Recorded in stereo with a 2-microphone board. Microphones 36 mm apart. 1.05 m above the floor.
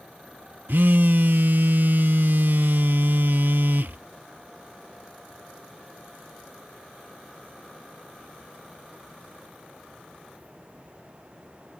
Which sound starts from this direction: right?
A phone buzzing, at 0.7 s.